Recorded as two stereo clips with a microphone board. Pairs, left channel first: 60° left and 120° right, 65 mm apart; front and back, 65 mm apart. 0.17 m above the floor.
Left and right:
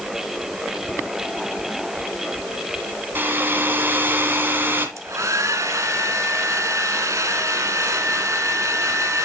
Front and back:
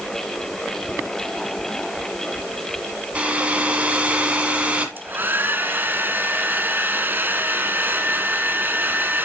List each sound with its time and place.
3.1 s a hair dryer: 130° right, 1.7 m
5.0 s a hair dryer: 130° right, 0.8 m